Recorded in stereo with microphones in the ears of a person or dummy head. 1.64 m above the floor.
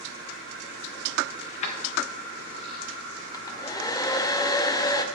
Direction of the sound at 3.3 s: 20° left (ahead or behind).